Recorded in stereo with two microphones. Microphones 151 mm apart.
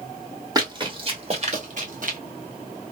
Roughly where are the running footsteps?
Right.